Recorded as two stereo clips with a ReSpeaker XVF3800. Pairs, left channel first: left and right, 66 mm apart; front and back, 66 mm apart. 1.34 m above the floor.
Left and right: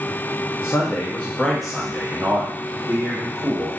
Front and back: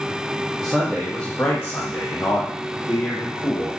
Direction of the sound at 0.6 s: 100° left.